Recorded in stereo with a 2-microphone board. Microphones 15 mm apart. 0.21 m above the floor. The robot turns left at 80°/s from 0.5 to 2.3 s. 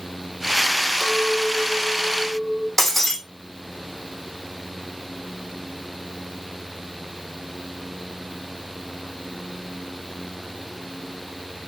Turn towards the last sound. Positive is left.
turn(degrees=20)  # may be behind; listen again after turning